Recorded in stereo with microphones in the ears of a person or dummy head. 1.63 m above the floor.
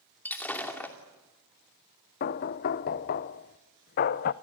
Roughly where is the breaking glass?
Centre.